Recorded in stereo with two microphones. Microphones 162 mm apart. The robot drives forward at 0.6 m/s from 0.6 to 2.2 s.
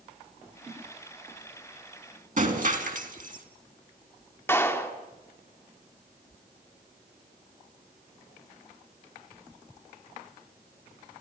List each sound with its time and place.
2.4 s breaking glass: 55° right (ahead or behind), 3 m
4.5 s a clap: 15° left (ahead or behind), 2.5 m